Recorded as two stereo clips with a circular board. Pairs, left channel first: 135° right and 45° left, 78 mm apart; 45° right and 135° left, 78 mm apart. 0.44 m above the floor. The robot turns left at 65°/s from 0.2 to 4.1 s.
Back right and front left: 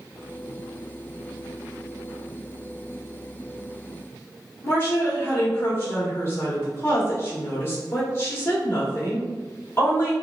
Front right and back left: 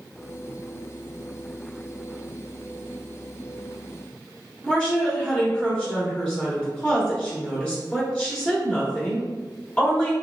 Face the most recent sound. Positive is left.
turn(degrees=-110)